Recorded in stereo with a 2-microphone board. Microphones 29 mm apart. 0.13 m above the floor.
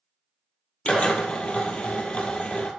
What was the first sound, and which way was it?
A drill, 45° left (ahead or behind).